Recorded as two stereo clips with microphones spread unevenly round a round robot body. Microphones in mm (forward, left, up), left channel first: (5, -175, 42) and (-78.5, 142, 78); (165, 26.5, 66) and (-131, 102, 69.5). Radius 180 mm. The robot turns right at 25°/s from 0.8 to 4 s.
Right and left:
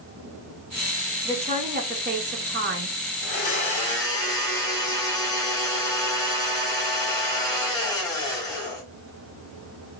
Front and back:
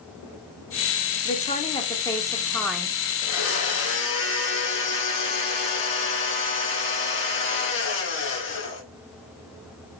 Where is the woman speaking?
35° left, 1.2 m; by 3.0 s 75° left, 1.2 m.